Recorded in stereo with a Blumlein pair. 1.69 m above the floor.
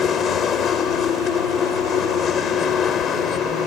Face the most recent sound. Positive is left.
turn(degrees=25)